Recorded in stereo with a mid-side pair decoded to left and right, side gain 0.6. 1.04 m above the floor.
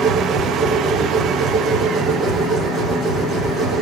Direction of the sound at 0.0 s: 45° right.